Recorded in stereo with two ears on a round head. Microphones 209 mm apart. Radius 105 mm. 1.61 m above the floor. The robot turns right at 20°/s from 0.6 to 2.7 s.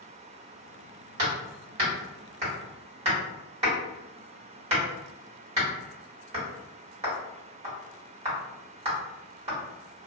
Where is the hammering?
50° right (ahead or behind), 2.0 m; by 9.6 s 30° right (ahead or behind), 2.0 m.